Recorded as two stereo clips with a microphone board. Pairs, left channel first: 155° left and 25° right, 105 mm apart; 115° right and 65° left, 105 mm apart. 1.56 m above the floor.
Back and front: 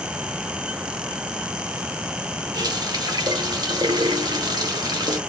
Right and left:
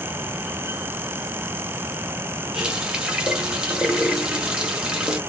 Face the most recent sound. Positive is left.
turn(degrees=-10)